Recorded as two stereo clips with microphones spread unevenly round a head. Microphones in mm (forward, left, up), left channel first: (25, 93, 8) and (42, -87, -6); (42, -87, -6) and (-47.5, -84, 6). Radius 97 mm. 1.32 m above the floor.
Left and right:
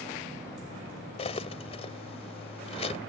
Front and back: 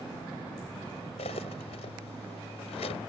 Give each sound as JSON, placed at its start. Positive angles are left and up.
{"t": 1.2, "sound": "cutlery clinking", "azimuth_deg": 40}